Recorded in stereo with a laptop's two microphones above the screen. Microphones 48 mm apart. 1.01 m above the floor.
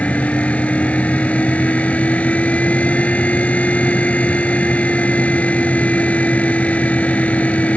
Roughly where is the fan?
Left.